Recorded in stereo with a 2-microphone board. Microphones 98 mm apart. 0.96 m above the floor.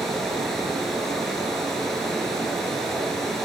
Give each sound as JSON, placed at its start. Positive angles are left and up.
{"t": 0.0, "sound": "running water", "side_deg": 0, "distance_m": 9.0}